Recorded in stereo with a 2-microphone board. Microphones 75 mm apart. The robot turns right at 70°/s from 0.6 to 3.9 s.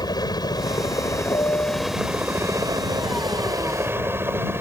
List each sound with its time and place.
0.0 s a helicopter: 95° left; by 4.6 s 35° right
1.3 s a piano: 115° left; by 2.0 s 160° left